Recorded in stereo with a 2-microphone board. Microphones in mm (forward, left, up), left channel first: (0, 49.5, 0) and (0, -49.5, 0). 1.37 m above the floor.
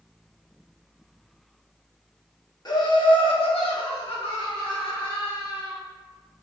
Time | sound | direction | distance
2.6 | laughter | 45° left (ahead or behind) | 0.9 m